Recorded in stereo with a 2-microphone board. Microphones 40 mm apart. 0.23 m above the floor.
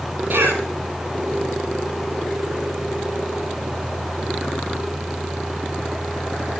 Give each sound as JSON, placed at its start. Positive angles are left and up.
{"t": 0.3, "sound": "a cough", "side_deg": -75, "distance_m": 6.0}